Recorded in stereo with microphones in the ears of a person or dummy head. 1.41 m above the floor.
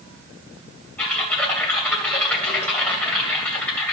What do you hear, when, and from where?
1.0 s typing on a keyboard: 10° left (ahead or behind), 2 m